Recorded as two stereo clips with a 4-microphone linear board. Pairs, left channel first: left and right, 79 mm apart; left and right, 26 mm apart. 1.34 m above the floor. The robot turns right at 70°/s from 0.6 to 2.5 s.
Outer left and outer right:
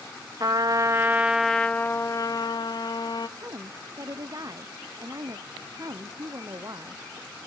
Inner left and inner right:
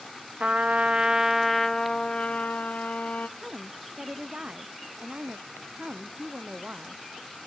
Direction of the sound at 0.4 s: 55° right.